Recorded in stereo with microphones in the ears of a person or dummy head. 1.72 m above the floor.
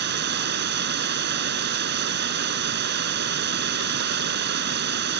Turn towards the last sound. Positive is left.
turn(degrees=-55)  # may be behind; listen again after turning